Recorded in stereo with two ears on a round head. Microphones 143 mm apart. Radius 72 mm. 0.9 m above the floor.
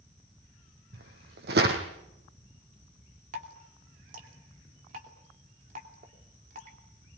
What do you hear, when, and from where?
0.9 s footsteps: 70° right (ahead or behind), 3 m
3.3 s dripping: 55° right (ahead or behind), 3 m